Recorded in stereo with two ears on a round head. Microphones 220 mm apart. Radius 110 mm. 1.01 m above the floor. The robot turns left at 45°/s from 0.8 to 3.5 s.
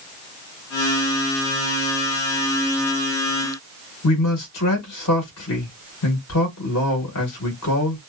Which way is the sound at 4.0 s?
70° left (ahead or behind).